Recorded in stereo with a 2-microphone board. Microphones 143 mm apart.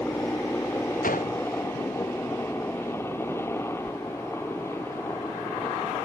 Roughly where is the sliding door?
Centre.